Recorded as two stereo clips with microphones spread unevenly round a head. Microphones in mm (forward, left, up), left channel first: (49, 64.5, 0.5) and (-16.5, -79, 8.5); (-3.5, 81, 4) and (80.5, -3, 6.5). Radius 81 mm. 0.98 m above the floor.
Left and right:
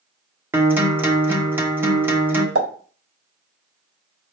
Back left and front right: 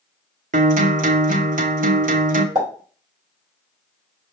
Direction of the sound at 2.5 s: 115° right.